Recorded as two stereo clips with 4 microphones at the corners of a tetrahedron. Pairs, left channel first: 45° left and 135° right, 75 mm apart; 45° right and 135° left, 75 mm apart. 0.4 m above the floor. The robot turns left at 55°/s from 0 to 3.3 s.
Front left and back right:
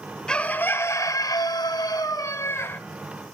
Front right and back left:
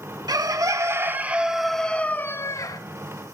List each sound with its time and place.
0.3 s a bird: 120° left, 0.6 m; by 2.8 s 15° right, 0.6 m